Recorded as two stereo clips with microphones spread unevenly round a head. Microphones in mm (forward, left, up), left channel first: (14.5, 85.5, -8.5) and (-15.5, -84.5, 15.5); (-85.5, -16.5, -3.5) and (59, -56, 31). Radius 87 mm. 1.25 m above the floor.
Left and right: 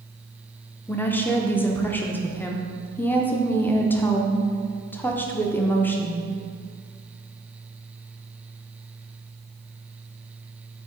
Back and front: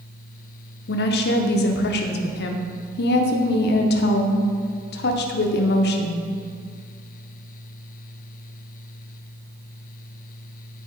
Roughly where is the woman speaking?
Behind.